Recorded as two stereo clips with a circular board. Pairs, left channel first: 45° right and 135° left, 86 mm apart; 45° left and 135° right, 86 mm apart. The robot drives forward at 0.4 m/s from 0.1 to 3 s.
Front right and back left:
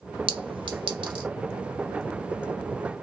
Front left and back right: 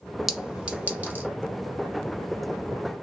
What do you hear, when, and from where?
0.3 s a clink: 140° left, 0.5 m; by 1.3 s 155° left, 0.9 m